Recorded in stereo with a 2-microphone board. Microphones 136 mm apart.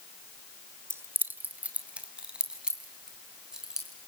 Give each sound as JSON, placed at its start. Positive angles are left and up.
{"t": 0.9, "sound": "keys jangling", "side_deg": -20, "distance_m": 1.3}